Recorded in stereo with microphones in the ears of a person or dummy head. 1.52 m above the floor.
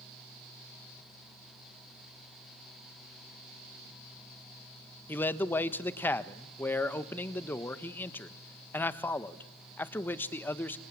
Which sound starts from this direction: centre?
A man speaking, at 5.1 s.